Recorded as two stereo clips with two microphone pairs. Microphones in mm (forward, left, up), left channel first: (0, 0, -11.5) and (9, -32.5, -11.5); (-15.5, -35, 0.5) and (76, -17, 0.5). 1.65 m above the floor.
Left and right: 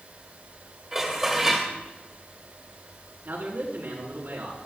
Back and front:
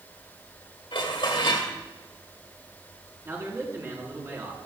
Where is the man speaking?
45° right, 4.5 m.